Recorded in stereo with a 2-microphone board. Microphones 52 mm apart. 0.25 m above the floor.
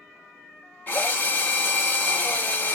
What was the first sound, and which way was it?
A drill, 40° left (ahead or behind).